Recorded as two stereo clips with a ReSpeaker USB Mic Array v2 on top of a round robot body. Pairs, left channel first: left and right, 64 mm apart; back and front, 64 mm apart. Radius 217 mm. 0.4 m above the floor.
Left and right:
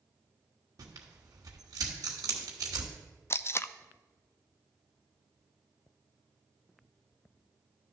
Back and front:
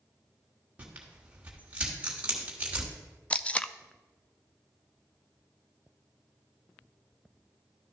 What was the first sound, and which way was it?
Tearing paper, 70° right.